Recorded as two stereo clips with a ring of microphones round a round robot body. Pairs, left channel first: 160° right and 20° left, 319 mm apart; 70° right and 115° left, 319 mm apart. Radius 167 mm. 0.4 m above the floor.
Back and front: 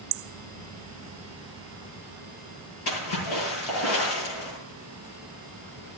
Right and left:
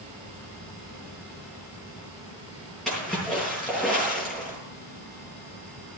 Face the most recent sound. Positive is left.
turn(degrees=-155)